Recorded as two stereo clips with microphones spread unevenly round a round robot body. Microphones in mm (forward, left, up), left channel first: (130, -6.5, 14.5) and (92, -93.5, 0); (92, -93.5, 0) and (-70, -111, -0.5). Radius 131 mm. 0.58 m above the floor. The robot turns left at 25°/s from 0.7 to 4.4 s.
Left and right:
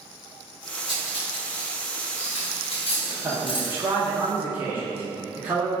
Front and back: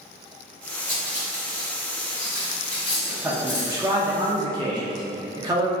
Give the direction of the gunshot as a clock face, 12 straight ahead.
I don't hear a gunshot.